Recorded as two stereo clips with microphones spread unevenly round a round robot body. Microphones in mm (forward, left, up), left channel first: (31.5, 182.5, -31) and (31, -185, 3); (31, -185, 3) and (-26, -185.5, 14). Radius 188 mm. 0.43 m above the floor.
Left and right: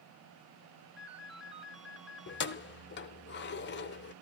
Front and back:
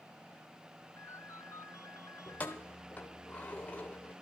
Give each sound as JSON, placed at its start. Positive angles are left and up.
{"t": 1.0, "sound": "a ringtone", "azimuth_deg": 0, "distance_m": 1.5}
{"t": 2.3, "sound": "keys jangling", "azimuth_deg": 45, "distance_m": 0.8}